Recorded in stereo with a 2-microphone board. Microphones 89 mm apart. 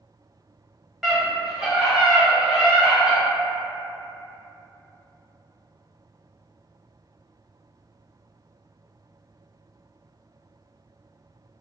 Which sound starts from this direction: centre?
A scream, at 1.0 s.